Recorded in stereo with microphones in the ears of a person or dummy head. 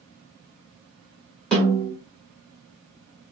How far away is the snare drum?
About 4 m.